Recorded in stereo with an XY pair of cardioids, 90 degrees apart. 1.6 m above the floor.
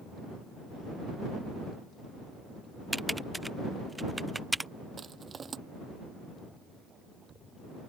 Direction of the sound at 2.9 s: 10° right.